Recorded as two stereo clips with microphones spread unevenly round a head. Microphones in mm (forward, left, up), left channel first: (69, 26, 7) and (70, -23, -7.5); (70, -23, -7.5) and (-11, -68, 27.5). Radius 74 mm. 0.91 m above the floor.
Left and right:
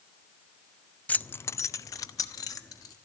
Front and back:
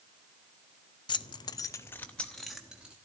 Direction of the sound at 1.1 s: 25° left.